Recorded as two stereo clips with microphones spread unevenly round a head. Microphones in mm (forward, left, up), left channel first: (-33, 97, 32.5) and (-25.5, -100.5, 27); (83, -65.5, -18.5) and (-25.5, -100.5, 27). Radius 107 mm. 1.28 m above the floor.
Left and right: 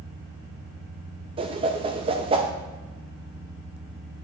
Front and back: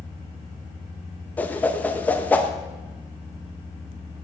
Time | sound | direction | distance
1.4 | a whoosh | 95° right | 0.5 m